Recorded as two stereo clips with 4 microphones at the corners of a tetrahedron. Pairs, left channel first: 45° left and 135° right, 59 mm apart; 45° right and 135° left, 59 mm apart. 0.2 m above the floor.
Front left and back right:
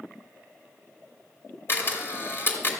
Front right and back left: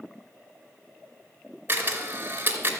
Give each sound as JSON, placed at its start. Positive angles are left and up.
{"t": 1.7, "sound": "a camera shutter", "azimuth_deg": 85, "distance_m": 2.5}